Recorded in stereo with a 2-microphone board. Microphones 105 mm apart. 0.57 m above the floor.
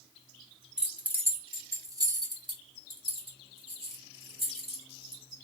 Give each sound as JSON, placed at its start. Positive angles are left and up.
{"t": 0.8, "sound": "keys jangling", "side_deg": -5, "distance_m": 1.1}